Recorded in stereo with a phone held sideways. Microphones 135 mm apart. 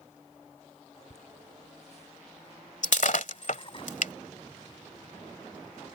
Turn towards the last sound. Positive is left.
turn(degrees=65)  # may be behind; listen again after turning